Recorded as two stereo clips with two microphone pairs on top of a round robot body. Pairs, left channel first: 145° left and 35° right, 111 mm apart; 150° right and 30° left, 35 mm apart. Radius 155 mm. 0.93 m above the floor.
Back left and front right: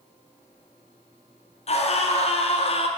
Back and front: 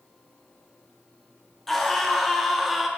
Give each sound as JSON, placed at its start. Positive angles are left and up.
{"t": 1.7, "sound": "a scream", "azimuth_deg": 120, "distance_m": 2.5}